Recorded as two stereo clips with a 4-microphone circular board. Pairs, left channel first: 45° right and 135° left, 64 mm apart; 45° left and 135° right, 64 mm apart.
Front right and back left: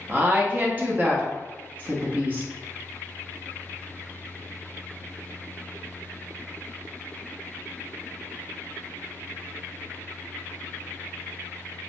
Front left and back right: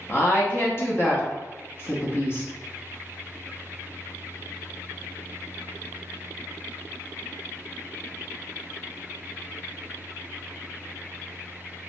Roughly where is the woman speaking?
Left.